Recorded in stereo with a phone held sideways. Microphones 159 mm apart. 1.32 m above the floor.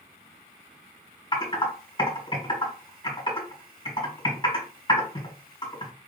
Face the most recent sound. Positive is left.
turn(degrees=30)  # may be behind; listen again after turning